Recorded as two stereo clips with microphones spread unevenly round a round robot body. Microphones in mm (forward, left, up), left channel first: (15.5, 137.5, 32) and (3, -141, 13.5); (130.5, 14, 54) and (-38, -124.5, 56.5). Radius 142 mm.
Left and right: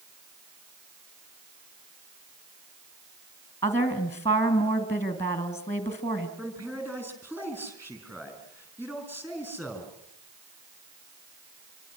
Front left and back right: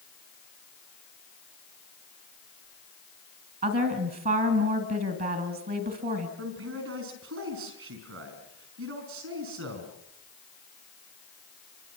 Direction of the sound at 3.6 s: 170° left.